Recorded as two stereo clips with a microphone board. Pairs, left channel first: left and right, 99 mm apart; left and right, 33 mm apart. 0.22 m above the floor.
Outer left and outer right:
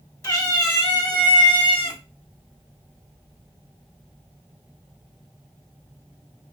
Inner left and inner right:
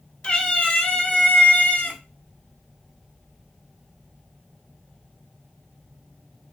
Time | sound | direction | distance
0.2 | a cat meowing | 35° left (ahead or behind) | 1.0 m